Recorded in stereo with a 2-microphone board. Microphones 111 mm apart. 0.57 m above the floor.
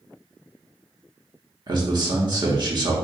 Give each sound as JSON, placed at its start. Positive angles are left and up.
{"t": 1.7, "sound": "a man speaking", "side_deg": -40, "distance_m": 1.1}